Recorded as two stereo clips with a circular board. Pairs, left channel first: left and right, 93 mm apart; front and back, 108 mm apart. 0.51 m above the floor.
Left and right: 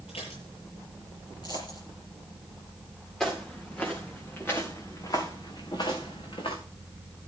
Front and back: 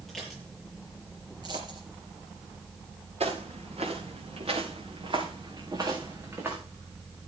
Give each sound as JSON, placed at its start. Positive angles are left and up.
{"t": 0.1, "sound": "dishes clattering", "azimuth_deg": 85, "distance_m": 6.5}
{"t": 1.4, "sound": "a dropped coin", "azimuth_deg": 130, "distance_m": 4.5}
{"t": 3.2, "sound": "footsteps", "azimuth_deg": 175, "distance_m": 4.5}